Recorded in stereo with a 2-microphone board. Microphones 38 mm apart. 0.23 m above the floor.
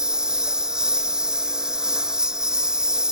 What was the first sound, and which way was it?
A lawn mower, 20° right (ahead or behind).